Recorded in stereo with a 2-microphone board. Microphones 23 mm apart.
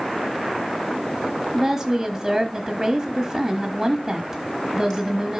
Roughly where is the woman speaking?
Centre.